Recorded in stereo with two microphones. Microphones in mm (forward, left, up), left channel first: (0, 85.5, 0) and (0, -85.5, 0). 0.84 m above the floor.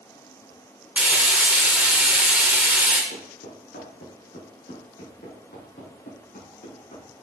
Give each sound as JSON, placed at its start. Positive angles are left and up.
{"t": 1.0, "sound": "frying", "side_deg": -5, "distance_m": 1.9}
{"t": 3.1, "sound": "footsteps", "side_deg": 80, "distance_m": 4.0}